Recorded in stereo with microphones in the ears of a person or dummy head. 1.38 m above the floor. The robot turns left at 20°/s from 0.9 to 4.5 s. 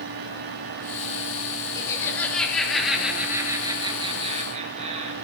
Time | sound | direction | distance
1.8 | laughter | 20° left | 3 m